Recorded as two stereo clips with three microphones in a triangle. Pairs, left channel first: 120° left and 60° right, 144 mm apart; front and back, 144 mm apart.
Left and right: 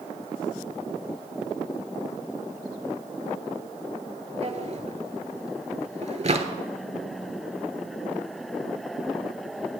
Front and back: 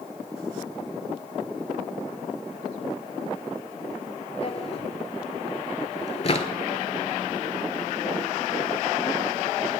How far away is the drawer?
About 0.5 m.